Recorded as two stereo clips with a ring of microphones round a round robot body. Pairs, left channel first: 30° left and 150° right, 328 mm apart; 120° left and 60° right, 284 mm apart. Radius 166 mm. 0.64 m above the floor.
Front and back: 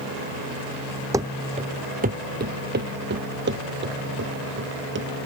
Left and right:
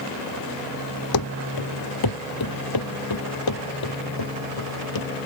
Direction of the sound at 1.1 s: 130° left.